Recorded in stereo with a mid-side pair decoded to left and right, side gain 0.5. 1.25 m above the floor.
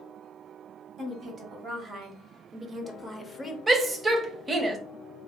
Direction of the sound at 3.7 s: 30° right.